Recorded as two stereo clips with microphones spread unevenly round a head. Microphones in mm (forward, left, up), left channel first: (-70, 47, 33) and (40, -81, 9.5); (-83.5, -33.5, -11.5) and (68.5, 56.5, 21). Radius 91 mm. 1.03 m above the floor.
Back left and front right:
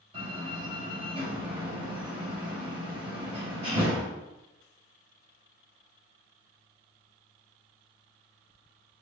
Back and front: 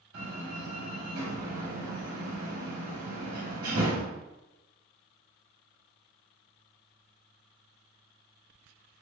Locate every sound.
0.1 s a door slam: 10° left, 4 m